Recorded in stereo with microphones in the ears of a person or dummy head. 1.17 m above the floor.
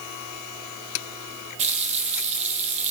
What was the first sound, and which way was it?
A running tap, 35° right (ahead or behind).